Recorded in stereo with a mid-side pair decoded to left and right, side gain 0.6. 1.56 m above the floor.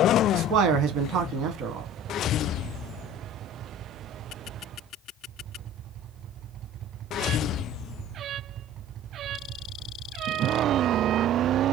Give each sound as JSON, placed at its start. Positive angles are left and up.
{"t": 0.3, "sound": "a man speaking", "azimuth_deg": -60, "distance_m": 0.9}